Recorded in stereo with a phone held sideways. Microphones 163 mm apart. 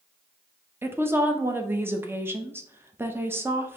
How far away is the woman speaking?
About 0.6 m.